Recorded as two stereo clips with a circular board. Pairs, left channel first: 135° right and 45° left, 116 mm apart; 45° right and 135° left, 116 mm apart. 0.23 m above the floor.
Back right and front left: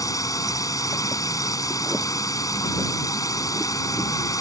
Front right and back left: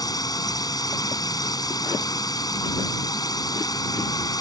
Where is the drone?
85° right.